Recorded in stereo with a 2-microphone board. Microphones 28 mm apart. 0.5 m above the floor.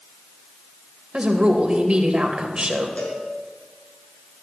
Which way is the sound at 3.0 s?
50° left (ahead or behind).